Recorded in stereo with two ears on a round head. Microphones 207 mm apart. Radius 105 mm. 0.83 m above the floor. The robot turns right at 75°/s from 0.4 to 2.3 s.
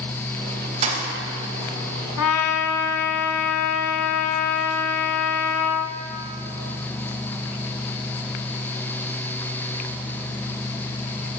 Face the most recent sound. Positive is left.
turn(degrees=65)  # may be behind; listen again after turning